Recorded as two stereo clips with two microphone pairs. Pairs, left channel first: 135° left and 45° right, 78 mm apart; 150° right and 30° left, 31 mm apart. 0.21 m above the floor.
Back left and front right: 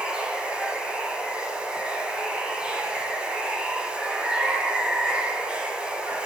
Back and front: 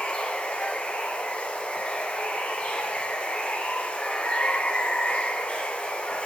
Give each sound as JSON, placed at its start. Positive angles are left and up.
{"t": 0.0, "sound": "running water", "azimuth_deg": -120, "distance_m": 1.3}